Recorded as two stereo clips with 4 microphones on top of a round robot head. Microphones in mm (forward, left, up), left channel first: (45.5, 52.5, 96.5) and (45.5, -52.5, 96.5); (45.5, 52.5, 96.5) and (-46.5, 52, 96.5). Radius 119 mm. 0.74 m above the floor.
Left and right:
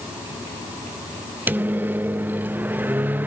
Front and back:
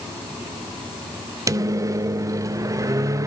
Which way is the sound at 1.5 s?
150° right.